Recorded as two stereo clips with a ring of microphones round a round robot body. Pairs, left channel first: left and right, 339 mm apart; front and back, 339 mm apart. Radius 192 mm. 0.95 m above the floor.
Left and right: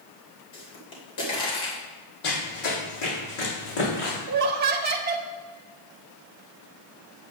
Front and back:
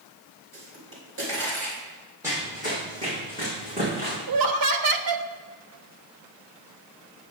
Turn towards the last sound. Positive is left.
turn(degrees=-155)